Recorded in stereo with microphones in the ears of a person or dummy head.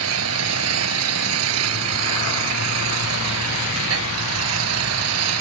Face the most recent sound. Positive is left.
turn(degrees=-85)